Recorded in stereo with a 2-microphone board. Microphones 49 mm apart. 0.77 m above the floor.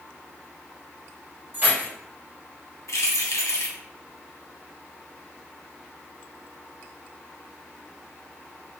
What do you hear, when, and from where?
1.5 s keys jangling: 40° right (ahead or behind), 1.5 m
2.9 s keys jangling: 80° left, 0.6 m